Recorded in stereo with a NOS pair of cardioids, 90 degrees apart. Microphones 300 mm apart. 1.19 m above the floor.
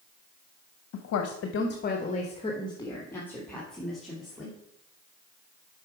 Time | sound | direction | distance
0.9 | a woman speaking | 65° left | 0.9 m